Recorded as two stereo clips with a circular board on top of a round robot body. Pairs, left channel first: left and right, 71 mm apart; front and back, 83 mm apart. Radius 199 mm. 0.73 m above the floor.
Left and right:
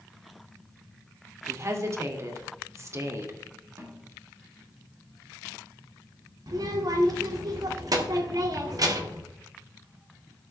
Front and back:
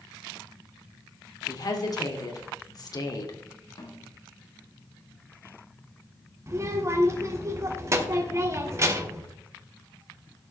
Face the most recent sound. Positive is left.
turn(degrees=-125)